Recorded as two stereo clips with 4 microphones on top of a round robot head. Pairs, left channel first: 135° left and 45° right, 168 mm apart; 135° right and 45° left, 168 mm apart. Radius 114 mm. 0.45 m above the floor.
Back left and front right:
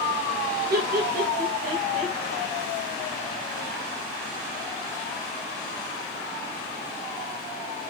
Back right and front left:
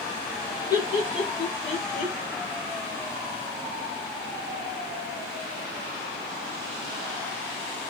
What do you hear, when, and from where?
0.7 s laughter: 65° right, 1.3 m; by 2.1 s 110° right, 1.7 m